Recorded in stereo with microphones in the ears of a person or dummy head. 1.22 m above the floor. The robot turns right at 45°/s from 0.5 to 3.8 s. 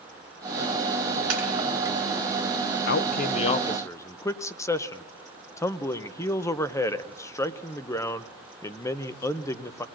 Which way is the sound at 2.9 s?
125° left.